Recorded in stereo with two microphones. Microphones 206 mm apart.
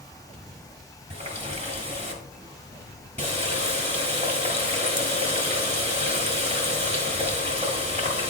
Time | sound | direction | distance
1.1 | a running tap | 35° right (ahead or behind) | 1.5 m